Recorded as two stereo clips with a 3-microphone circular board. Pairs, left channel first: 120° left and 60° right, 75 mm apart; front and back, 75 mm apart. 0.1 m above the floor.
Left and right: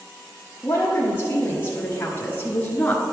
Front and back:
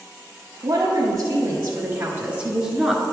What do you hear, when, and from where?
0.6 s a woman speaking: 175° left, 1.7 m; by 3.0 s 85° left, 1.1 m